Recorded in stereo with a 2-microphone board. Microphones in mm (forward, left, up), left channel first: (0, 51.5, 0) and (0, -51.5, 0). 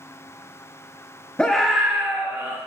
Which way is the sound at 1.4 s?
10° left (ahead or behind).